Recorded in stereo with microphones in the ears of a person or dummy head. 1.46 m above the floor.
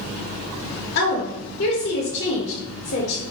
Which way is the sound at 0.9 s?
55° left (ahead or behind).